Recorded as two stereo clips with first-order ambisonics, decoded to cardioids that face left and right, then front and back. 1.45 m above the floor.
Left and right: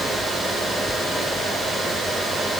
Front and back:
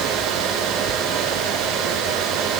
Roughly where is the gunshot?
No gunshot in this recording.